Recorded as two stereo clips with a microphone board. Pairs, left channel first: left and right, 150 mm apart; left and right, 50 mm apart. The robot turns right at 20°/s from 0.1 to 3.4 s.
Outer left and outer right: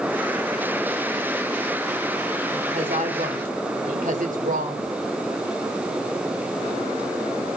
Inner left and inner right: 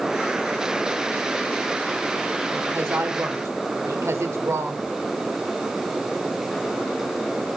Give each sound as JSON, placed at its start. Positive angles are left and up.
{"t": 2.5, "sound": "a woman speaking", "side_deg": -50, "distance_m": 2.5}